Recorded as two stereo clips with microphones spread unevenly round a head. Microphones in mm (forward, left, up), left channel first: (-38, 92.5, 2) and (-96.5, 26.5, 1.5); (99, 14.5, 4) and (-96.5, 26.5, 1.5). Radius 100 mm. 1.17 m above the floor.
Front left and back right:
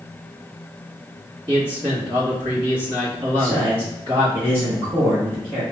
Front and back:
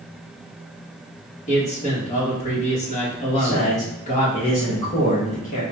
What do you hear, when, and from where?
1.5 s a man speaking: 65° right, 1.5 m
3.3 s a man speaking: 60° right, 1.3 m